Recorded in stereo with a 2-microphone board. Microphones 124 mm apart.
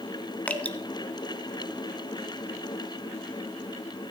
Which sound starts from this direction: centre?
Dripping, at 0.5 s.